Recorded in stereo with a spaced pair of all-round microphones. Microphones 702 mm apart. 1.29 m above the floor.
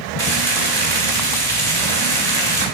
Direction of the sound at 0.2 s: 60° right (ahead or behind).